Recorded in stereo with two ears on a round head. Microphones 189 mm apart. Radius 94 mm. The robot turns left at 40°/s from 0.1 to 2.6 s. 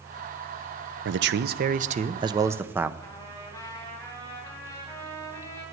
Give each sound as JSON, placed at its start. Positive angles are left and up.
{"t": 1.1, "sound": "a man speaking", "azimuth_deg": -105, "distance_m": 0.6}
{"t": 3.0, "sound": "a trumpet", "side_deg": 15, "distance_m": 3.0}